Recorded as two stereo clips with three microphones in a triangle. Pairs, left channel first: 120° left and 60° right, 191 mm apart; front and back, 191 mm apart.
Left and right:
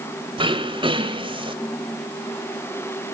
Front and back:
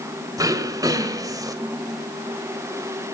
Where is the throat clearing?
115° right, 1.8 m.